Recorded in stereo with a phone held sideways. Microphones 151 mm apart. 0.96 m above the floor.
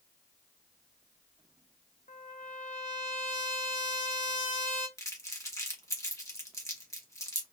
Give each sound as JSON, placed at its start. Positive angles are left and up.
{"t": 2.1, "sound": "a trumpet", "side_deg": 55, "distance_m": 0.9}
{"t": 5.0, "sound": "crumpling", "side_deg": 20, "distance_m": 1.5}